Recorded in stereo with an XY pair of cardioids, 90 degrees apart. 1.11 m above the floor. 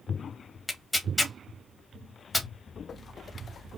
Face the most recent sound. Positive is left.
turn(degrees=15)